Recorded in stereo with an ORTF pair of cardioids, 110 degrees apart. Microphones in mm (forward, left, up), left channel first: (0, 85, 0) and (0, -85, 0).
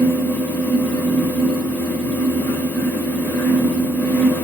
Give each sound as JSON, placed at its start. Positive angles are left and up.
{"t": 0.0, "sound": "a fan", "azimuth_deg": 15, "distance_m": 1.3}